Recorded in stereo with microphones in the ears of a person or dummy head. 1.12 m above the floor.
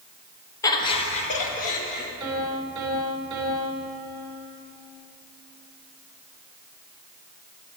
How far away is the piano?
About 3.5 m.